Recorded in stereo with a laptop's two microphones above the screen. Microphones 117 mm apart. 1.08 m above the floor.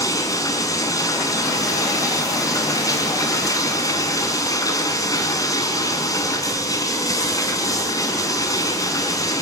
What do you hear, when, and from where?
0.0 s running water: 30° left (ahead or behind), 5 m